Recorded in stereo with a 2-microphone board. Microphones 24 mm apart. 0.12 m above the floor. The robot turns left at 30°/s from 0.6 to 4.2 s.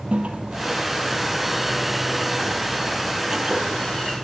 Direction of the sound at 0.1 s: 65° right (ahead or behind).